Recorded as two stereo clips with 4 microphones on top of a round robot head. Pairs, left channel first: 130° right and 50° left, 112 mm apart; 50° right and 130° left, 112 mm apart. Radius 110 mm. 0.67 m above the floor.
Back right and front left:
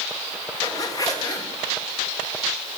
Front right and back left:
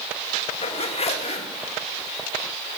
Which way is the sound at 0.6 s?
70° right.